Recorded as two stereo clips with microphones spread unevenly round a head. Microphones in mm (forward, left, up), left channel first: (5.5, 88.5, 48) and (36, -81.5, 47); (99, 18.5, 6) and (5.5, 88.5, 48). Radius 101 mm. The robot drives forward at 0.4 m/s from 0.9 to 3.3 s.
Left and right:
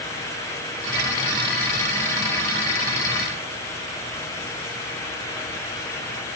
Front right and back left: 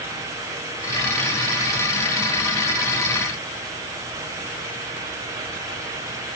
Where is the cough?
I don't hear a cough.